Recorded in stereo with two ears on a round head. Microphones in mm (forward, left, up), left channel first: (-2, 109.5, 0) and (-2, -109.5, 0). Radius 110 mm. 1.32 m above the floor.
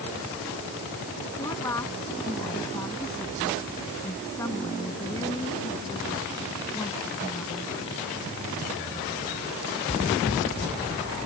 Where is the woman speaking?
10° left (ahead or behind).